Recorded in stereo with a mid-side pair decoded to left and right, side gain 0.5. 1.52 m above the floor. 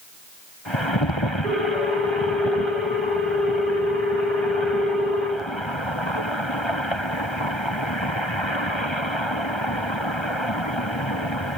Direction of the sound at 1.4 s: 45° right.